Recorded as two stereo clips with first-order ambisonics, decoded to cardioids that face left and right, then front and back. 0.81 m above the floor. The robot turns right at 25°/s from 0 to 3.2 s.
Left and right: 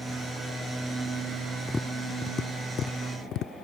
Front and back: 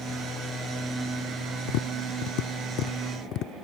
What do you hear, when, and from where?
1.7 s tapping: 5° left; by 3.5 s 45° left